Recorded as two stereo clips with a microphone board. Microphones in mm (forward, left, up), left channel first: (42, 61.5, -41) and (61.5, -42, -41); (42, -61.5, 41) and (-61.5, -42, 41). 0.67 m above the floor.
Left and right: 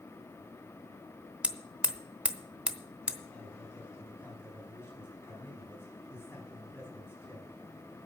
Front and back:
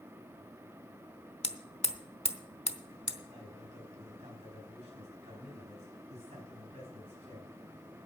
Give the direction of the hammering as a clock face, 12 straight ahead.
12 o'clock.